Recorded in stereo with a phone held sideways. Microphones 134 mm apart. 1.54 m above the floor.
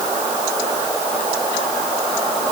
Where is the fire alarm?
No fire alarm in this recording.